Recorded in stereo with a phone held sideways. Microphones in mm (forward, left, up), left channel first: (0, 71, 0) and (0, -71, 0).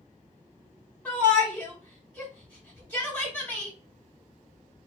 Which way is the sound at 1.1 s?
10° left (ahead or behind).